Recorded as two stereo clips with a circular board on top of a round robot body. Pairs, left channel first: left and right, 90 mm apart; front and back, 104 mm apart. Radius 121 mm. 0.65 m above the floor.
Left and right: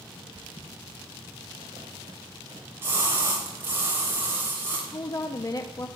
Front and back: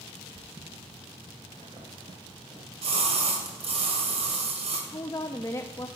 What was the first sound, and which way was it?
Footsteps, 130° right.